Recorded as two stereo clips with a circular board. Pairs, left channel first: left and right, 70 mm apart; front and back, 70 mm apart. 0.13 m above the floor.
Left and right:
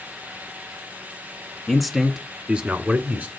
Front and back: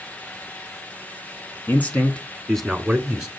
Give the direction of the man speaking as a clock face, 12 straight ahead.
12 o'clock.